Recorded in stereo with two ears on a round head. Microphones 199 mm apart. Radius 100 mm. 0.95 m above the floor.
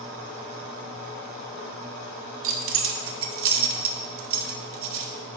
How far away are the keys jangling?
About 0.8 m.